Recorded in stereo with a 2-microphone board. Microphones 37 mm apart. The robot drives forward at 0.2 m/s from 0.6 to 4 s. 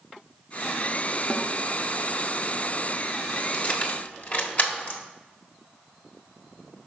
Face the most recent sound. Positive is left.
turn(degrees=45)  # may be behind; listen again after turning